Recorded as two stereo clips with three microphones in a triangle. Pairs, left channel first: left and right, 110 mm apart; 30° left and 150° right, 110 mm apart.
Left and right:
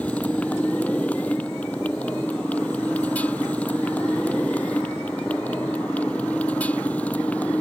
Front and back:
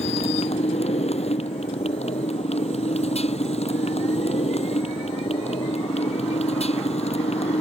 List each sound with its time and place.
0.0 s a motorcycle: 15° left